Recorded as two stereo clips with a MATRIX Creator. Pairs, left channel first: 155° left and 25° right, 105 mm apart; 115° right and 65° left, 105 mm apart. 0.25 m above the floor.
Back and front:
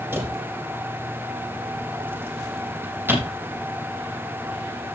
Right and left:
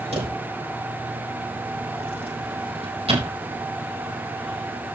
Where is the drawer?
45° left, 4.5 m.